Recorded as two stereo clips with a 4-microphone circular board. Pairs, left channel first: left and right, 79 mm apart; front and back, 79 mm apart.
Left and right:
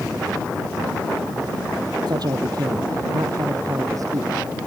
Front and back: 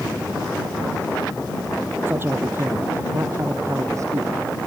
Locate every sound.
2.1 s a man speaking: 120° right; by 4.3 s 135° right